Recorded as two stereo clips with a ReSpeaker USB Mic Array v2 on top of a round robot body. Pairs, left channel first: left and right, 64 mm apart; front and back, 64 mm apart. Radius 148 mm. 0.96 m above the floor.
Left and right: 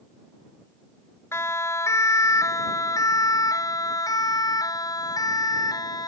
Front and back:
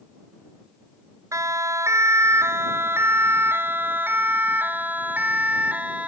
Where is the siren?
140° left; by 6.1 s 110° left.